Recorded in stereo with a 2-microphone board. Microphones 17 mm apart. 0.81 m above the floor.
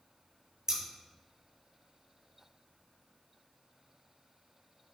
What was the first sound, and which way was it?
Scissors, 35° right (ahead or behind).